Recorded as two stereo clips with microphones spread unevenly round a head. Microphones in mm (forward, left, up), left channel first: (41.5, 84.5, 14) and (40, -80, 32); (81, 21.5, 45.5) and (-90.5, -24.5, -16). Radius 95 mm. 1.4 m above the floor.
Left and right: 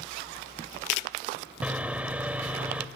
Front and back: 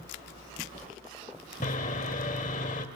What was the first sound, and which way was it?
Sawing, 10° right.